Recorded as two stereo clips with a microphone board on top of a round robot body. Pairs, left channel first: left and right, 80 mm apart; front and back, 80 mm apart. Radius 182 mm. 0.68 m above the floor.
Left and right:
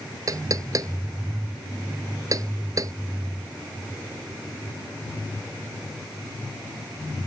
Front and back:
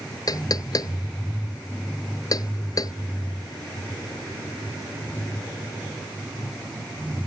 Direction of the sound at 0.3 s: 45° right.